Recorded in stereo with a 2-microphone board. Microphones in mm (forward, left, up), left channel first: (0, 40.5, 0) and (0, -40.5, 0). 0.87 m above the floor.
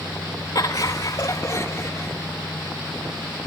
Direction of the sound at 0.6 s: 55° left (ahead or behind).